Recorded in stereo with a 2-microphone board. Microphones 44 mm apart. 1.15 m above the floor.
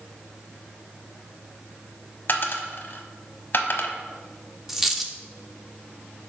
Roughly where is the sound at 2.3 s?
Left.